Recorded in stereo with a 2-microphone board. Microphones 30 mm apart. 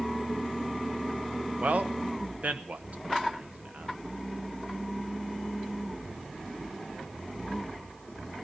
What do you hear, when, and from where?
1.6 s a man speaking: 60° right (ahead or behind), 1.0 m